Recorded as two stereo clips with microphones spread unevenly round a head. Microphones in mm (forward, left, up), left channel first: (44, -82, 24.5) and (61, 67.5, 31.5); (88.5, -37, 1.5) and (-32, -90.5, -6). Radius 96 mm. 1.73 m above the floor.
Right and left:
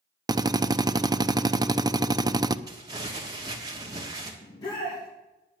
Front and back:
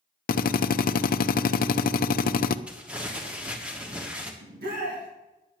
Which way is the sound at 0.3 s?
15° left.